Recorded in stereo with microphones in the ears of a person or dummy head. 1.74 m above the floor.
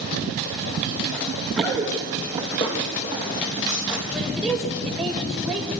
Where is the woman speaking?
Centre (ahead or behind), 6.5 m.